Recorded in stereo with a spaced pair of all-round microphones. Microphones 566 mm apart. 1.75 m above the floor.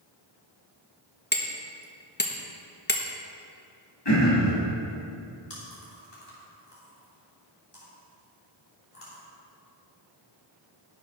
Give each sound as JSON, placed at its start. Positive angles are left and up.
{"t": 1.3, "sound": "hammering", "side_deg": 20, "distance_m": 1.1}
{"t": 4.0, "sound": "throat clearing", "side_deg": 45, "distance_m": 3.0}
{"t": 5.5, "sound": "chewing", "side_deg": 75, "distance_m": 3.0}